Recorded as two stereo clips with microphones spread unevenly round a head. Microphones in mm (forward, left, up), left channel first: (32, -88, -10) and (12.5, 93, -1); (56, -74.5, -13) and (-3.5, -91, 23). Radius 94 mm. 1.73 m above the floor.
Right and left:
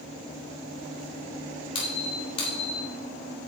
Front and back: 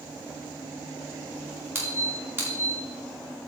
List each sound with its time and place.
1.8 s a squeak: 145° right, 2.5 m